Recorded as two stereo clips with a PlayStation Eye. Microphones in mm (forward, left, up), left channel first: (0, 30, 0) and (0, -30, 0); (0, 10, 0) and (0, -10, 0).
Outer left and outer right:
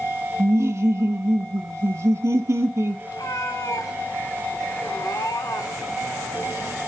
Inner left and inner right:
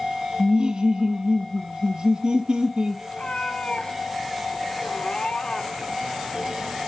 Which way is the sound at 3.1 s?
85° left.